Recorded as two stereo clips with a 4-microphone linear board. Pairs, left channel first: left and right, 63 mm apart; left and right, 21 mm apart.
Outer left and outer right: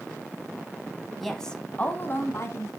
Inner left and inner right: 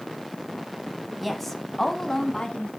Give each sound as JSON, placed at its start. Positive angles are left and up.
{"t": 1.2, "sound": "a woman speaking", "side_deg": 0, "distance_m": 1.3}